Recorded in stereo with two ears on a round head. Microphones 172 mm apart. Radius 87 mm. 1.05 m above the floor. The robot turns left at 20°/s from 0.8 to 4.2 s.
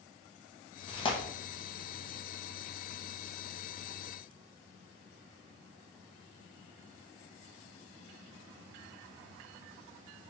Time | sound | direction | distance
0.9 | tearing paper | 30° left (ahead or behind) | 0.8 m